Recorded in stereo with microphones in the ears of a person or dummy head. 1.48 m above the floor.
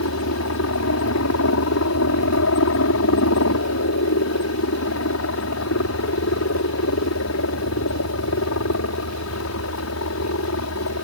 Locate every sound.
0.0 s a helicopter: 70° left (ahead or behind)